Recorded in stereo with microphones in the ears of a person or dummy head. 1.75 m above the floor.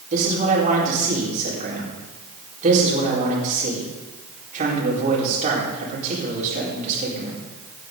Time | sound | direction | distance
0.1 | a man speaking | 40° right (ahead or behind) | 4.5 m